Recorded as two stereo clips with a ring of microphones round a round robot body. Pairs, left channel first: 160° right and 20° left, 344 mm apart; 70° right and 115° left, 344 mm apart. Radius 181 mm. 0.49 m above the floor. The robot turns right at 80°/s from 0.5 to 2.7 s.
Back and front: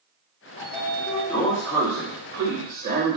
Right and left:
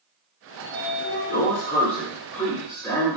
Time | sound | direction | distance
0.6 | a sliding door | 165° right | 1.2 m